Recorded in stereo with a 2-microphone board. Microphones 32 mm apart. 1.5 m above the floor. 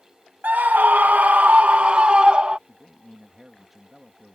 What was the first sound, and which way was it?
A scream, 70° right (ahead or behind).